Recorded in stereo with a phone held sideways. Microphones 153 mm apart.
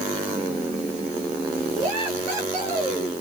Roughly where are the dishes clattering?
I don't hear dishes clattering.